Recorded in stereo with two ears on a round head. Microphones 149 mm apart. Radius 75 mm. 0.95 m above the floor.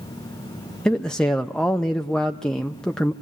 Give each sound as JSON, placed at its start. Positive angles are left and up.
{"t": 0.8, "sound": "a man speaking", "side_deg": 5, "distance_m": 0.7}